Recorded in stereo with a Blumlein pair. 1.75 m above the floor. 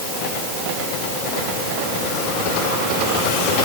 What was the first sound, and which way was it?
Only background noise.